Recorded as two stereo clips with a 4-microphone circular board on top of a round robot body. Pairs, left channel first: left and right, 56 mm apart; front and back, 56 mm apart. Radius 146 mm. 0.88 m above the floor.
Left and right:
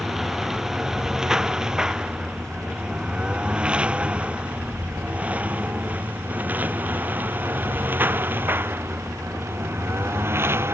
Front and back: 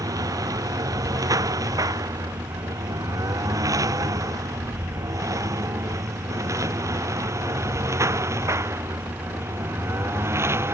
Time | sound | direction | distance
0.0 | a lawn mower | 175° right | ?